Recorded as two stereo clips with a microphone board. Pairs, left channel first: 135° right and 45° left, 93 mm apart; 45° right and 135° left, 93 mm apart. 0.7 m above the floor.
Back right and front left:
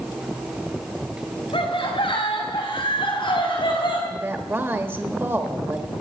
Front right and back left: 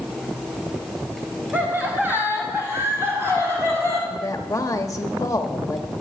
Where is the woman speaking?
10° right, 1.3 m.